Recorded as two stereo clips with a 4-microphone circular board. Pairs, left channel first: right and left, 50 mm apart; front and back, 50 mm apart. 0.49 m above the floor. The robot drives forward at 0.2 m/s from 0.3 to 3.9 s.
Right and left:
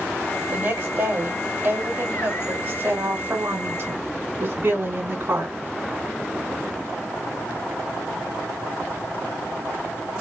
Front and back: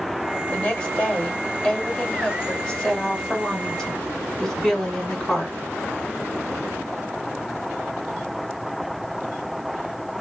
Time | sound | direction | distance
0.5 | a woman speaking | 65° left | 2.5 m